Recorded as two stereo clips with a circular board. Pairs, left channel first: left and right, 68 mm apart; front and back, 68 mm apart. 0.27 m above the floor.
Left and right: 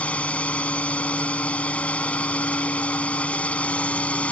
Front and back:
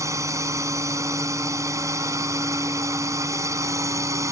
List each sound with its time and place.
0.0 s a drone: 155° left